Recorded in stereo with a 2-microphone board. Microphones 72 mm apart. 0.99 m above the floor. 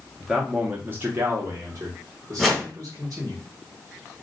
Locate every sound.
0.2 s a man speaking: centre (ahead or behind), 0.6 m; by 3.4 s 50° right (ahead or behind), 1.6 m
2.4 s a whoosh: centre (ahead or behind), 1.1 m